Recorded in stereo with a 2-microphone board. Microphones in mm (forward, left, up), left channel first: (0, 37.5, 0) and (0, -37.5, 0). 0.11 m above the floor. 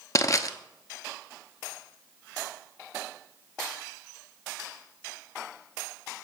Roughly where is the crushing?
Left.